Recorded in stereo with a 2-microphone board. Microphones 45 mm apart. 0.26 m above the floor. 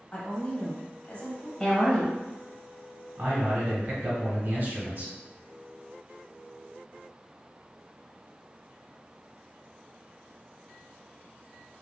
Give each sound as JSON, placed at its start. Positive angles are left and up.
{"t": 0.1, "sound": "a woman speaking", "side_deg": 40, "distance_m": 1.1}
{"t": 1.6, "sound": "a woman speaking", "side_deg": 15, "distance_m": 0.9}
{"t": 3.2, "sound": "a man speaking", "side_deg": -50, "distance_m": 1.8}